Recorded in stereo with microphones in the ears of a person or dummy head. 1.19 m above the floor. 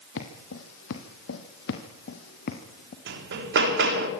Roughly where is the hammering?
Right.